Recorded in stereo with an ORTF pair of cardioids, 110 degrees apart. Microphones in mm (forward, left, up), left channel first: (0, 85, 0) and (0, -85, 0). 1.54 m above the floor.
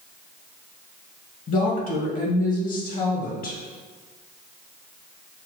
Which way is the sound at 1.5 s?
55° left.